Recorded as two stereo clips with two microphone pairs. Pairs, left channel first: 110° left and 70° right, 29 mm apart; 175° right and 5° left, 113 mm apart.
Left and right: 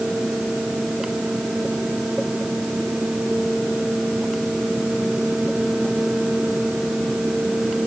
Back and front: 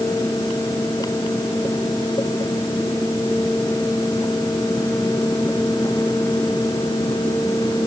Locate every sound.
Only background noise.